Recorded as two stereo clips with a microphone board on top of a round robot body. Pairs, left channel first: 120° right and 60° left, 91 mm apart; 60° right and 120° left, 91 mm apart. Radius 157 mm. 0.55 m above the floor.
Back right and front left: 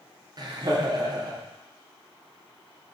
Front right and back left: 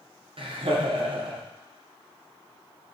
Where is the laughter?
100° left, 1.7 m.